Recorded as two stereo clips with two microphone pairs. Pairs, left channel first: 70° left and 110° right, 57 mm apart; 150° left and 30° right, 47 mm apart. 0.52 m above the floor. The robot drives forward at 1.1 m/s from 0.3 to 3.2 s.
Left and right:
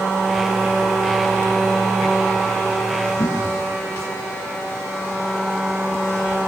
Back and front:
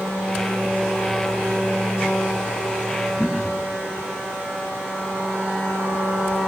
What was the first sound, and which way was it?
Throat clearing, 70° left.